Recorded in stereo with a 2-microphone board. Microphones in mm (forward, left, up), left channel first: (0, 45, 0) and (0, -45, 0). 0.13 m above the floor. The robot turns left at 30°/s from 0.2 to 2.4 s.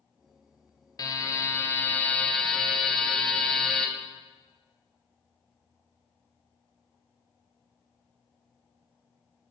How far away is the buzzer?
About 0.6 m.